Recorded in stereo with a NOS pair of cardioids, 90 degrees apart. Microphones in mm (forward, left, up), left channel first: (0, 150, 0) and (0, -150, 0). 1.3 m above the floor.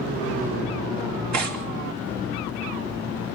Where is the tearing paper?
60° right, 3 m.